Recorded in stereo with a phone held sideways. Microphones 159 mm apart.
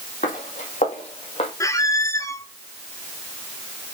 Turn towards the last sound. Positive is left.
turn(degrees=20)  # may be behind; listen again after turning